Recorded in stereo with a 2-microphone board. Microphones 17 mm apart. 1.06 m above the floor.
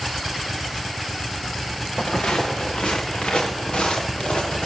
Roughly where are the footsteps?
Left.